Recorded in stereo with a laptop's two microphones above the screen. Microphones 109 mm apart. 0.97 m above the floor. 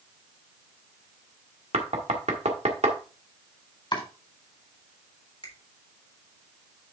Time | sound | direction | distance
1.7 | knocking | 85° right | 1.5 m
3.9 | chopping | 45° left (ahead or behind) | 4 m
5.4 | a finger snap | 55° left (ahead or behind) | 3.5 m